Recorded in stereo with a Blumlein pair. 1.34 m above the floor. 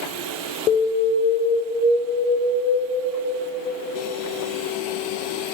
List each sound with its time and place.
0.7 s an alarm: 35° left, 2.5 m